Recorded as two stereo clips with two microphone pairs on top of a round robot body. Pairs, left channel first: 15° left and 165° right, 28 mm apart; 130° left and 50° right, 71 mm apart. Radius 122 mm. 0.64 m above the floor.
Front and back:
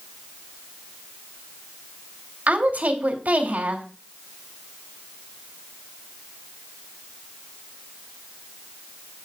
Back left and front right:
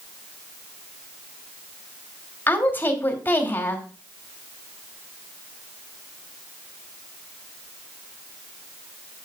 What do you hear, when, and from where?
2.5 s a woman speaking: 170° right, 2.5 m